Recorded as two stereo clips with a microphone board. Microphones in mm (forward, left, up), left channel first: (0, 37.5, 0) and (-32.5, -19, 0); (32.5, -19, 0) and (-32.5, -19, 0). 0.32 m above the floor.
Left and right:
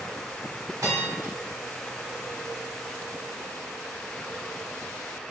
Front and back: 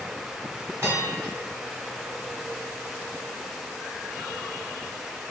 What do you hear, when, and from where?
0.8 s a bell: 135° right, 1.3 m